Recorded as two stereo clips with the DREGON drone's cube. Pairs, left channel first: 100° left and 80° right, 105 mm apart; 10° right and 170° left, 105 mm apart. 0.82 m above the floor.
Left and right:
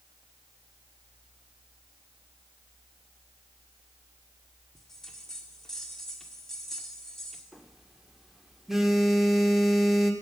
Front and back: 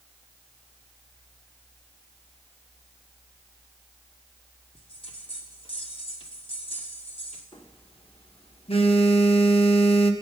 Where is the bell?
15° left, 1.7 m.